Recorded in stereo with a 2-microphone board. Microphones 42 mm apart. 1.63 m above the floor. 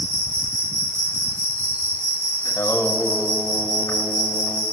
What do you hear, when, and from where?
0.0 s an insect: 75° right (ahead or behind), 3.5 m
2.5 s singing: 85° left, 1.7 m